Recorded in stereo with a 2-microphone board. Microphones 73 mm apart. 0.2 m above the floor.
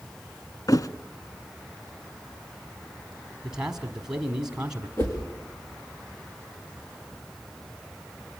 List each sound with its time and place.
0.7 s a thud: 55° left (ahead or behind), 0.7 m
3.4 s a man speaking: 10° right (ahead or behind), 1.2 m
5.0 s a whoosh: 30° left (ahead or behind), 4.5 m